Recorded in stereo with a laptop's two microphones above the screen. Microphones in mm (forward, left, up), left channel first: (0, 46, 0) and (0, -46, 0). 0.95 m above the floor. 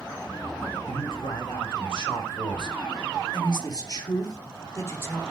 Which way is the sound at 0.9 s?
65° left (ahead or behind).